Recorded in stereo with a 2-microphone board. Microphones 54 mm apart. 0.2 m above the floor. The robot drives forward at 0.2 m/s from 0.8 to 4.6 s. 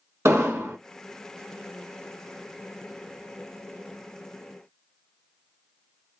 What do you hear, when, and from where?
0.2 s an explosion: 60° right (ahead or behind), 0.6 m